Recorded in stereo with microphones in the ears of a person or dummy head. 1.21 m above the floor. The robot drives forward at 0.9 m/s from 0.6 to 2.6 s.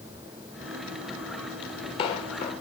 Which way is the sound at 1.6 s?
30° left (ahead or behind).